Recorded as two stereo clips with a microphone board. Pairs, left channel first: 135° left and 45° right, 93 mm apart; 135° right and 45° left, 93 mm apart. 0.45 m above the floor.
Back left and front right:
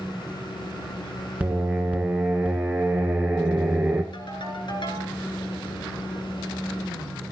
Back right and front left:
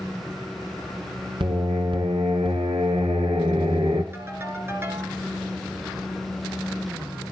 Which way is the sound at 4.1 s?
110° left.